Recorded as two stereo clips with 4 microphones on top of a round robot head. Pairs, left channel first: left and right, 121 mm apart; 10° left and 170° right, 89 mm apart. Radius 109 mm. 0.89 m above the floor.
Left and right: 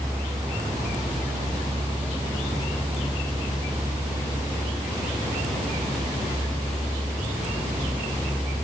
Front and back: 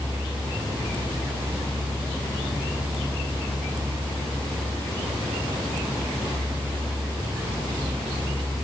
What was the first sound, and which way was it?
Only background noise.